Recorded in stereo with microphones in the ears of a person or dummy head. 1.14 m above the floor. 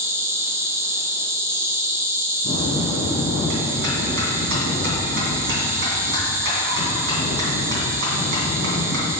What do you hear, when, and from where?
0.0 s an insect: 20° right (ahead or behind), 0.8 m
2.4 s a bell: 70° right (ahead or behind), 2.5 m